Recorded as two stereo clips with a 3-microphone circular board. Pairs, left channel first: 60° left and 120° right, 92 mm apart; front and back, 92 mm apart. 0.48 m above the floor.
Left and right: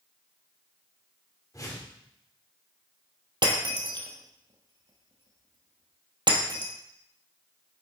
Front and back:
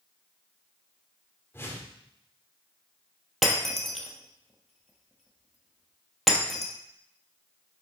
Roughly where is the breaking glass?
Right.